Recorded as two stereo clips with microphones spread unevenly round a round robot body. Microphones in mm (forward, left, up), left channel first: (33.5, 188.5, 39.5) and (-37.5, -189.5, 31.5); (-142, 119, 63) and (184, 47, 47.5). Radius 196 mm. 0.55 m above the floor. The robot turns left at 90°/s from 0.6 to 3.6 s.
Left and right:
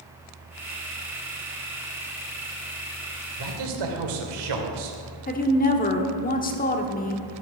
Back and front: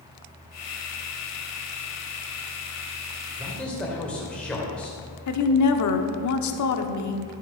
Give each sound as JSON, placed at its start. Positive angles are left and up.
{"t": 3.4, "sound": "a man speaking", "azimuth_deg": -85, "distance_m": 2.5}
{"t": 5.3, "sound": "a woman speaking", "azimuth_deg": 145, "distance_m": 1.4}